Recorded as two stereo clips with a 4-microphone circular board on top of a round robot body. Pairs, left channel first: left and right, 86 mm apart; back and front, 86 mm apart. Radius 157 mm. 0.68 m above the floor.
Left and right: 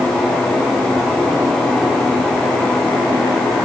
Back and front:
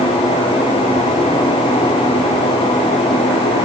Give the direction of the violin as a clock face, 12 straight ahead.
No violin in this recording.